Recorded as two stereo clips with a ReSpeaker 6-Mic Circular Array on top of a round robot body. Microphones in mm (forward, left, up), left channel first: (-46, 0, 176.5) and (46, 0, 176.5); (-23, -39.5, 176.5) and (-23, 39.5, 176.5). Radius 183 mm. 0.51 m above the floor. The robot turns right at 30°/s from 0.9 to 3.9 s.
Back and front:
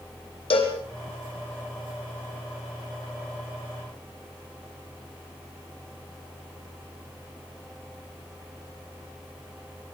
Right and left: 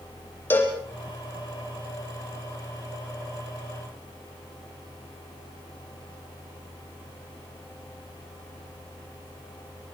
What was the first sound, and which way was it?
A cowbell, 155° right.